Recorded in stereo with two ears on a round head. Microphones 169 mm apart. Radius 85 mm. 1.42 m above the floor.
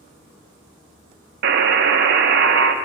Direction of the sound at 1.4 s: 60° right (ahead or behind).